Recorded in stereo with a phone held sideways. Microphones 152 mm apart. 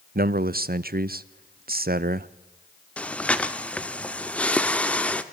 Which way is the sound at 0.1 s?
65° right (ahead or behind).